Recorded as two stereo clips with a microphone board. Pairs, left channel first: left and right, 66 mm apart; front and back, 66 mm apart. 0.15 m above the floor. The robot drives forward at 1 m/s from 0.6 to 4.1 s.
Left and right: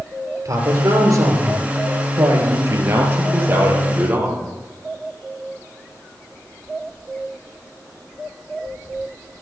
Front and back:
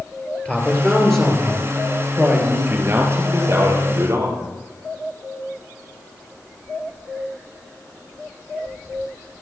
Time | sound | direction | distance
0.5 | a man speaking | 75° right | 3 m
2.7 | a man speaking | 130° right | 2 m